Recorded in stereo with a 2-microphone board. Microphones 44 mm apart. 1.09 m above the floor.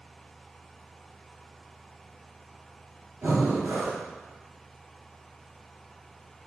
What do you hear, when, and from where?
3.2 s breathing: 85° right, 2 m